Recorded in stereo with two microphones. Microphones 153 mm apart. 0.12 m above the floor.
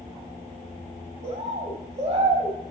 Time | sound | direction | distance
1.2 | a bird | 50° right (ahead or behind) | 3.5 m